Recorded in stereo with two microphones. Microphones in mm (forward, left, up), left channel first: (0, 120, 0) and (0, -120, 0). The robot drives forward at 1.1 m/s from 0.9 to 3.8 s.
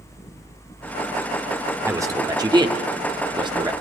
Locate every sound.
1.8 s a man speaking: 10° right (ahead or behind), 1.7 m; by 3.7 s 15° right (ahead or behind), 1.2 m